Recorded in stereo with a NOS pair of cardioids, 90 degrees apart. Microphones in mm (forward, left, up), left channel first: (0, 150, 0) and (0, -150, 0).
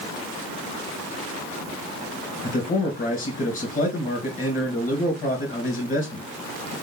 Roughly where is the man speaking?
Ahead left.